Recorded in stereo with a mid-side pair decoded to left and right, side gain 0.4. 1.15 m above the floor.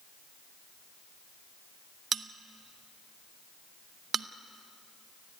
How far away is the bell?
About 0.9 m.